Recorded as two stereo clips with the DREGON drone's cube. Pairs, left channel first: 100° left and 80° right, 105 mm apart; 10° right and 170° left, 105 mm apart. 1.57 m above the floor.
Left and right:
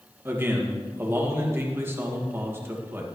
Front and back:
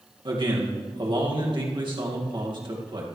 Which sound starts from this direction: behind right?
A man speaking, at 0.2 s.